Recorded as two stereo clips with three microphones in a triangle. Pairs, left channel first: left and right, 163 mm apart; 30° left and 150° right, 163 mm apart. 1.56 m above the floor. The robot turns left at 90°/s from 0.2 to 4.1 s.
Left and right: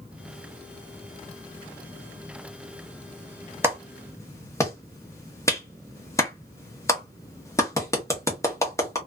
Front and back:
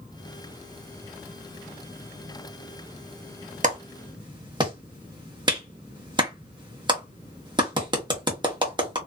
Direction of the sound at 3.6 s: 160° right.